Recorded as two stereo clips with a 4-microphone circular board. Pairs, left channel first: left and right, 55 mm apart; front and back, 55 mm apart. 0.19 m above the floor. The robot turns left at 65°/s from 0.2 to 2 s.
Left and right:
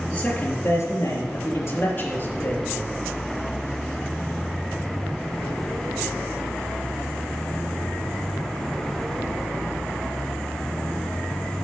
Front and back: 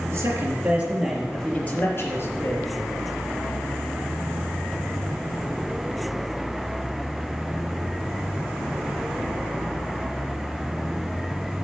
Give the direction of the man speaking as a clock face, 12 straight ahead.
7 o'clock.